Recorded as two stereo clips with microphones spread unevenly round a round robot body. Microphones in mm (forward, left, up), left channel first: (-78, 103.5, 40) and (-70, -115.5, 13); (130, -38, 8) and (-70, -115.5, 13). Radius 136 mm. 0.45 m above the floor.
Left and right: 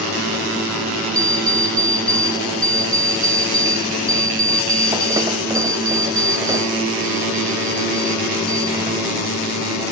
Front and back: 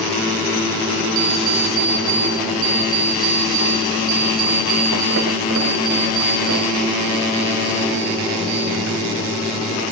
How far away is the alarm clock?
About 1.5 m.